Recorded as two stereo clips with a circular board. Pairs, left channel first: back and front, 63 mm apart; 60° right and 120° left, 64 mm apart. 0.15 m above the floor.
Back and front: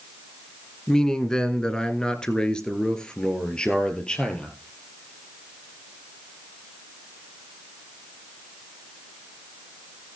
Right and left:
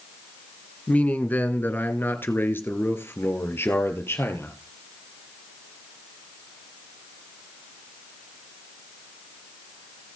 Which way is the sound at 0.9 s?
110° right.